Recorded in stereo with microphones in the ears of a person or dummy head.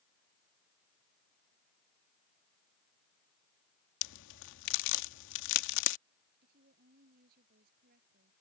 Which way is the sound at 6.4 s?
55° right (ahead or behind).